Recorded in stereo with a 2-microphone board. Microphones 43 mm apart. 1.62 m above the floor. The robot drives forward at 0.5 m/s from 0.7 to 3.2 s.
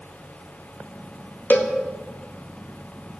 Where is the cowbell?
50° left (ahead or behind), 1.4 m; by 1.7 s 45° left (ahead or behind), 1.5 m.